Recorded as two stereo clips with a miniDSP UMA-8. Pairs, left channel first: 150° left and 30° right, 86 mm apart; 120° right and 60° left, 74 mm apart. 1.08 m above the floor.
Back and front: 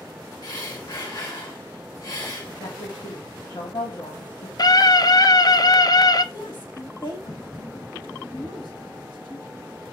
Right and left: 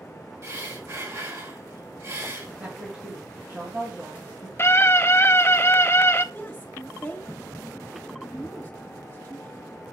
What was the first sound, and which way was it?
Breathing, 105° left.